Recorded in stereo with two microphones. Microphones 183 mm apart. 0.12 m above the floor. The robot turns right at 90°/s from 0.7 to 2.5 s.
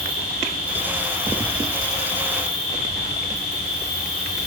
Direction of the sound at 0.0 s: 55° left.